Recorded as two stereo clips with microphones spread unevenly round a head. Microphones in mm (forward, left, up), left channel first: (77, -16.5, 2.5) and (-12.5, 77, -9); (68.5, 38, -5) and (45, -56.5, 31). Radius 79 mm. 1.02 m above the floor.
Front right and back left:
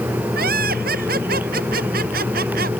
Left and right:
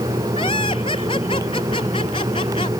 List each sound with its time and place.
0.3 s laughter: 135° left